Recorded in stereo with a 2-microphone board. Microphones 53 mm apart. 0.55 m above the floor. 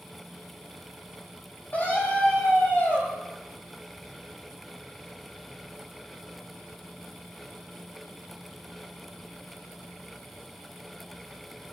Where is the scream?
35° left (ahead or behind), 4 m.